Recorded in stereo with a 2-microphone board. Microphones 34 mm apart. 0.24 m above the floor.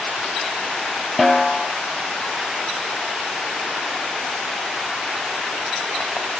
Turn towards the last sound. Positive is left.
turn(degrees=5)  # may be behind; listen again after turning